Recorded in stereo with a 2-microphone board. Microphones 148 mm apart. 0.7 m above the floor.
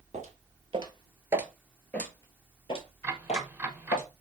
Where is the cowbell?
I don't hear a cowbell.